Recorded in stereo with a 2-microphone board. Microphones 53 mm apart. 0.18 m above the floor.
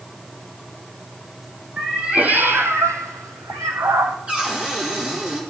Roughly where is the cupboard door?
Right.